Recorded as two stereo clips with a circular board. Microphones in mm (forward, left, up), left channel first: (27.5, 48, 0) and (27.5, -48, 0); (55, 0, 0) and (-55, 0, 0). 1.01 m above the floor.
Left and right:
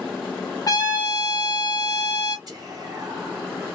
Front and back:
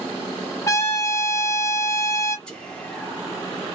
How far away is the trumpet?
About 0.6 m.